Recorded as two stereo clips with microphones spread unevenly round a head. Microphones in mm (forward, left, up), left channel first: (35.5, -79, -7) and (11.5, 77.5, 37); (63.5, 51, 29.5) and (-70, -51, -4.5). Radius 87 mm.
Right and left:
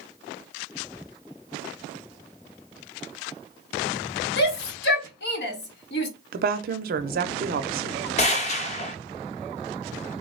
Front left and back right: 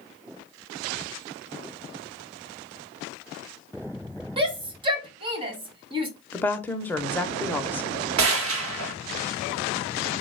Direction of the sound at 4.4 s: 80° right.